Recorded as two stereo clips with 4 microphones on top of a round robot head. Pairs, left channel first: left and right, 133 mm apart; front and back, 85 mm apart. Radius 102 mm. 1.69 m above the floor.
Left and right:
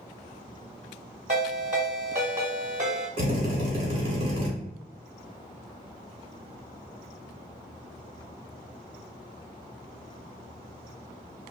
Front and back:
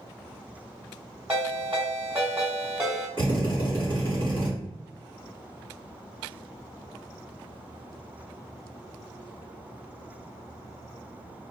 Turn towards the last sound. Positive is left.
turn(degrees=-50)